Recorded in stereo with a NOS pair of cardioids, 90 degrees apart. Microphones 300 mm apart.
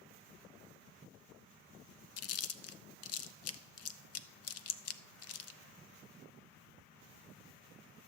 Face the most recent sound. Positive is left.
turn(degrees=55)